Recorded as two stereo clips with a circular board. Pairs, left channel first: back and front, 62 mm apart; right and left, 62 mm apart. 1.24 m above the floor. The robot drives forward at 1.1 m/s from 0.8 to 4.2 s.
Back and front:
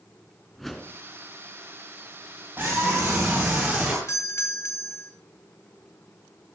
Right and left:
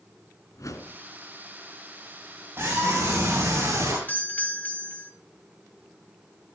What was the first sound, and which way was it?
A whoosh, 90° right.